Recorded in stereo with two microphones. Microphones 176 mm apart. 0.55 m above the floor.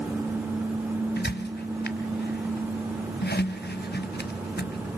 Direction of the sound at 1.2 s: 70° left (ahead or behind).